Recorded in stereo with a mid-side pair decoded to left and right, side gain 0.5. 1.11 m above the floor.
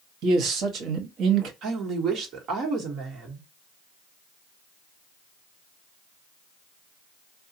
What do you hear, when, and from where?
0.2 s a man speaking: 70° right, 1.0 m
1.6 s a woman speaking: 70° right, 1.3 m